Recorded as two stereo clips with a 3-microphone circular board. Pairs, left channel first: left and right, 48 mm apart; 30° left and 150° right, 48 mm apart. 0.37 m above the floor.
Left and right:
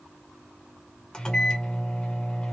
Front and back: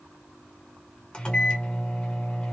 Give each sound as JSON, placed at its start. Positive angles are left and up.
{"t": 1.1, "sound": "a microwave", "azimuth_deg": 50, "distance_m": 0.8}